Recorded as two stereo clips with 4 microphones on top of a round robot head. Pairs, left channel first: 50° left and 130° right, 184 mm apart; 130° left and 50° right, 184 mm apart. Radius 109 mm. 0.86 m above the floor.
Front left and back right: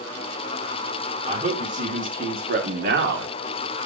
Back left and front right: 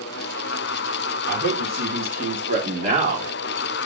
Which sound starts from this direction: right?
A man speaking, at 1.3 s.